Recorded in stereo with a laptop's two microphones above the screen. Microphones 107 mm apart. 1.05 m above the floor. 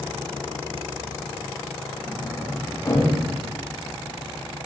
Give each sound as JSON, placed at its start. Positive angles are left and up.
{"t": 2.1, "sound": "a sliding door", "side_deg": 35, "distance_m": 5.5}